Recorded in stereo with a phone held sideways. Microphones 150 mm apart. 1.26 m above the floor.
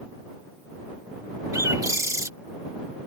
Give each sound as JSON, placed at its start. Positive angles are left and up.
{"t": 1.5, "sound": "a bird", "side_deg": -20}